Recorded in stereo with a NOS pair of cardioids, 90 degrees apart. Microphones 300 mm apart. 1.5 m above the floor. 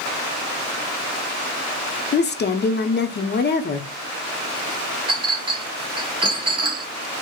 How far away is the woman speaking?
About 0.7 m.